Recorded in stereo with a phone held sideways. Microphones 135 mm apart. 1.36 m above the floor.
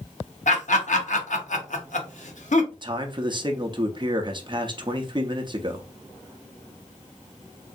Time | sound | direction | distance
0.5 | laughter | 65° left (ahead or behind) | 0.9 m
2.7 | a man speaking | 35° right (ahead or behind) | 0.6 m